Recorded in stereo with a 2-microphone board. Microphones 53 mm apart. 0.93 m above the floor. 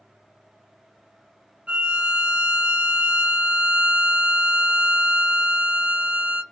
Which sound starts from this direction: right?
A violin, at 1.7 s.